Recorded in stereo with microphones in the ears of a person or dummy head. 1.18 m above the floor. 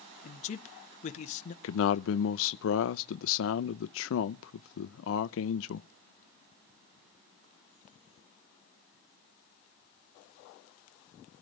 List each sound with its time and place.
0.2 s a man speaking: 45° left (ahead or behind), 0.9 m
1.6 s a man speaking: 70° left (ahead or behind), 0.6 m